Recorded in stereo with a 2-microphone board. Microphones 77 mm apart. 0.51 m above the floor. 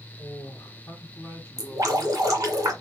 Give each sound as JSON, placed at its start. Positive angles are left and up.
{"t": 0.2, "sound": "a man speaking", "side_deg": 50, "distance_m": 1.3}
{"t": 1.6, "sound": "dripping", "side_deg": -45, "distance_m": 1.7}